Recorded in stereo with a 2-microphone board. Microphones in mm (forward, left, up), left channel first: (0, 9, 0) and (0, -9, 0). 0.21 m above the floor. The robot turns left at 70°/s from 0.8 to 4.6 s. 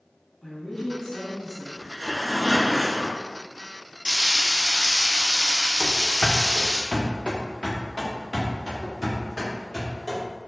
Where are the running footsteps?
80° left, 0.8 m; by 10.2 s 10° right (ahead or behind), 3 m.